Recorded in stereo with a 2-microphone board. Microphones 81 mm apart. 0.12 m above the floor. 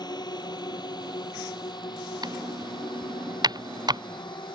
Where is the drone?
60° left (ahead or behind); by 4.6 s 70° left (ahead or behind).